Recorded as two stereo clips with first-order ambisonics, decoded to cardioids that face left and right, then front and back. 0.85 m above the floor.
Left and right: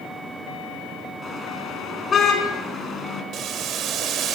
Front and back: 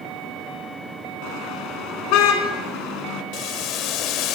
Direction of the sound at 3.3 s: 35° right.